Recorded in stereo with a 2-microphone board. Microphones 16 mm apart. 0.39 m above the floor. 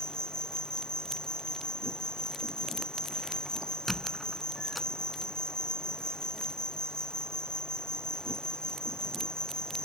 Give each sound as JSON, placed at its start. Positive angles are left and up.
{"t": 0.0, "sound": "an insect", "side_deg": 70}
{"t": 3.9, "sound": "a squeak", "side_deg": -5}